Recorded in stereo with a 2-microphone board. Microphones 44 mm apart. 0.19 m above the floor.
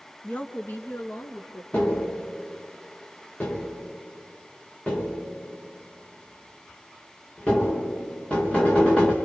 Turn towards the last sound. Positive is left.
turn(degrees=30)  # may be behind; listen again after turning